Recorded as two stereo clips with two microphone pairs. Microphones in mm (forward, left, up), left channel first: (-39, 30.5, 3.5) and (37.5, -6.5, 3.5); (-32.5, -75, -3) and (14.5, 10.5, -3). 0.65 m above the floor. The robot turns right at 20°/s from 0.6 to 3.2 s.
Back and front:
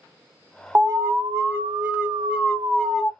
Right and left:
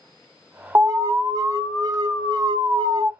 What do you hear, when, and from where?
0.8 s an alarm: 15° left, 0.9 m; by 3.1 s 65° left, 0.9 m